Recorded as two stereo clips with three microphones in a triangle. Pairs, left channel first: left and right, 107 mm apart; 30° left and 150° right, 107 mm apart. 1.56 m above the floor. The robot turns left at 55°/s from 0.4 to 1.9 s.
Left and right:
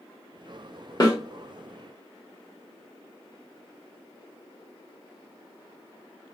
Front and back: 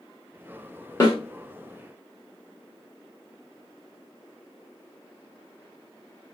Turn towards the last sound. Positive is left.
turn(degrees=15)